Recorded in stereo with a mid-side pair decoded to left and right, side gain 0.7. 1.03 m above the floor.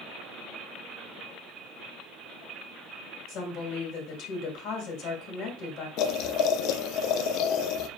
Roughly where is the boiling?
Ahead left.